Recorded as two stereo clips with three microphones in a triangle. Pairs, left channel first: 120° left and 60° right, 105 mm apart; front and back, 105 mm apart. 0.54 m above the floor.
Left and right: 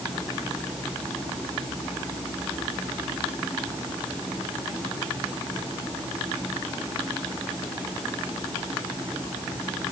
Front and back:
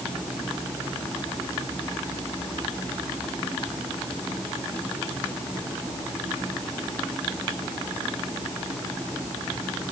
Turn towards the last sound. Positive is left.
No sound to turn to.